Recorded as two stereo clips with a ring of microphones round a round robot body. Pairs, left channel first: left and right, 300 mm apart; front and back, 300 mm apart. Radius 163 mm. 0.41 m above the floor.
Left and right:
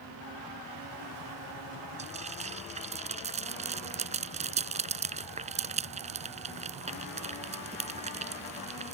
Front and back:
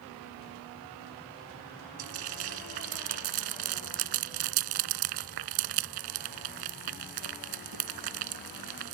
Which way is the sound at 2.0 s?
160° right.